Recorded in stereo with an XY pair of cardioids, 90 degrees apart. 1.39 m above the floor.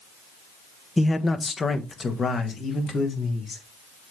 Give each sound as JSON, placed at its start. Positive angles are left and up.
{"t": 1.0, "sound": "a man speaking", "azimuth_deg": 15, "distance_m": 1.0}